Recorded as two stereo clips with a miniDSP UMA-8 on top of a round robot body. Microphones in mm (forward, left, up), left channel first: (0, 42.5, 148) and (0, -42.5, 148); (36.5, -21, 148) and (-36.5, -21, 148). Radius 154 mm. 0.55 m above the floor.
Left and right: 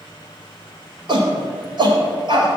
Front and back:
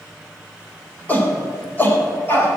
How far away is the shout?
About 3.5 m.